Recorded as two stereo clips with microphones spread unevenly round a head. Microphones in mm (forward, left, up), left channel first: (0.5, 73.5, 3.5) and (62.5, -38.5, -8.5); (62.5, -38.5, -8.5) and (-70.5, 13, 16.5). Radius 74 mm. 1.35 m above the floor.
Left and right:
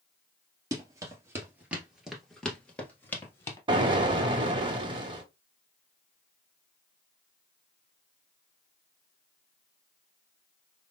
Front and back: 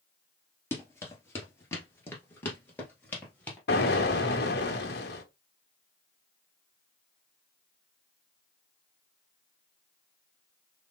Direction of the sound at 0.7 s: 95° right.